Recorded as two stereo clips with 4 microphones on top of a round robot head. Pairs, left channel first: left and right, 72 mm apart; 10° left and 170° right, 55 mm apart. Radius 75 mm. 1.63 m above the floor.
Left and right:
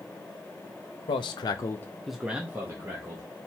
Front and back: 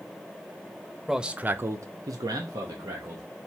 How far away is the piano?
I don't hear a piano.